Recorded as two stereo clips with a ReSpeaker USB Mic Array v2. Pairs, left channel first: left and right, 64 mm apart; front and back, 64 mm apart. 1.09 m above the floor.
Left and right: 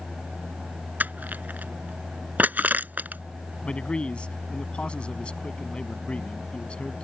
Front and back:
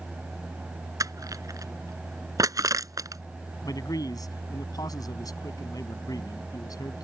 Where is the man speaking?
20° left.